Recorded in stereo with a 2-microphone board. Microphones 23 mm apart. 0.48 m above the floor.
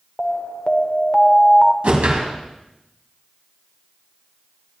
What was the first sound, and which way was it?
An alarm, 30° left (ahead or behind).